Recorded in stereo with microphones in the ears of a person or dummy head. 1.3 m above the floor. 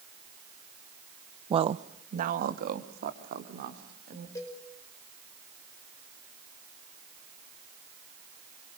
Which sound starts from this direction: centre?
A cowbell, at 4.3 s.